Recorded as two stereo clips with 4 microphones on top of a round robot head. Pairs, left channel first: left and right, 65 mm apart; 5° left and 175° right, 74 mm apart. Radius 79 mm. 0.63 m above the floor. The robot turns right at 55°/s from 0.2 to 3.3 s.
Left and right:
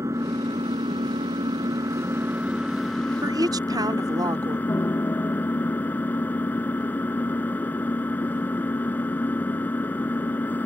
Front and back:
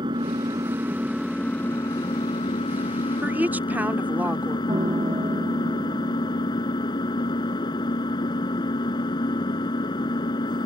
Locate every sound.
0.0 s an engine running: 145° right; by 10.7 s 25° left
3.2 s a woman speaking: 115° right; by 4.6 s 110° right
4.7 s a piano: 150° left